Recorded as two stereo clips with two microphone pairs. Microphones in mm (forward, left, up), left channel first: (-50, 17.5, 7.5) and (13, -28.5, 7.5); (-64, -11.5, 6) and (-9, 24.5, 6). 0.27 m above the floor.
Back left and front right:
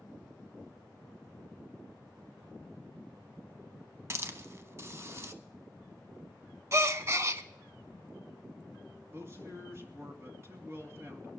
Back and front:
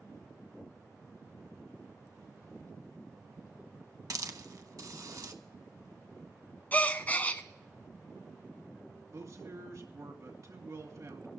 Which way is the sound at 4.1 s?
15° left.